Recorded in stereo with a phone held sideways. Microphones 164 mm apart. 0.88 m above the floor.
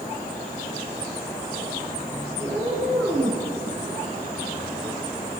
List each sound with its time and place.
2.4 s a cat meowing: 10° left (ahead or behind), 7 m